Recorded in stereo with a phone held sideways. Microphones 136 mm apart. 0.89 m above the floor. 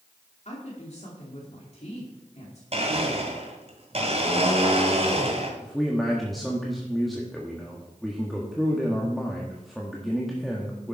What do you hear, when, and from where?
0.5 s a woman speaking: 55° left (ahead or behind), 2.5 m
2.7 s a blender: 50° right (ahead or behind), 2 m
5.6 s a man speaking: centre (ahead or behind), 1.5 m